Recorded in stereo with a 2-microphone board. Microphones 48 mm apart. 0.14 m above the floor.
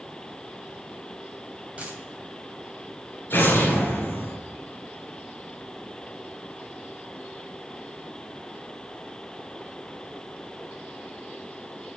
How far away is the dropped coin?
About 3 m.